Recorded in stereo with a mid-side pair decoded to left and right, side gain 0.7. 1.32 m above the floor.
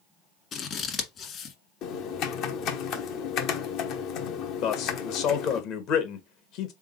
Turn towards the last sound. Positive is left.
turn(degrees=60)